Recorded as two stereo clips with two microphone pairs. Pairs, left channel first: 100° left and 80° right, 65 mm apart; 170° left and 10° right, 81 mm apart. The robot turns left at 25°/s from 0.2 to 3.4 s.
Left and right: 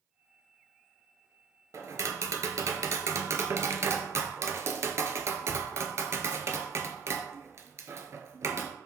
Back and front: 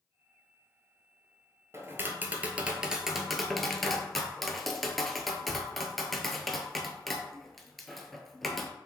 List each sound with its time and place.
1.7 s tapping: 65° right, 0.6 m; by 8.7 s 105° right, 0.6 m